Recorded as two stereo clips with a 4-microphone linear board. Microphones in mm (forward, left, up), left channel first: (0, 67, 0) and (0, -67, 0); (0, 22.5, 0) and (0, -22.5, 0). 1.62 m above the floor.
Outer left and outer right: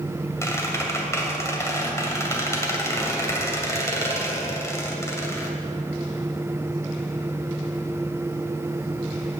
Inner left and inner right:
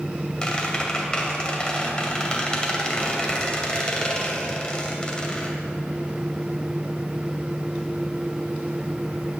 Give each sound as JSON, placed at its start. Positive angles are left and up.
{"t": 0.4, "sound": "a squeak", "side_deg": 20, "distance_m": 2.0}